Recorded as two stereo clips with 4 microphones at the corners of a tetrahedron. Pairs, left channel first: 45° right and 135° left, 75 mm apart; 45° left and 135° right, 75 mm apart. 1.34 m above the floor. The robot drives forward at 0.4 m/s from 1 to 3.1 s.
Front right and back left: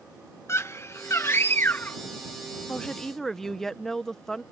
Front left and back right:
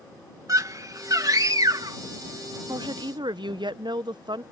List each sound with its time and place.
0.5 s a scream: 95° right; by 2.0 s 110° right
2.7 s a woman speaking: 120° right; by 4.4 s 130° right